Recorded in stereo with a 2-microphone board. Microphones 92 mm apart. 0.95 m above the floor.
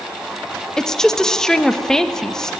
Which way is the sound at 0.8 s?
5° left (ahead or behind).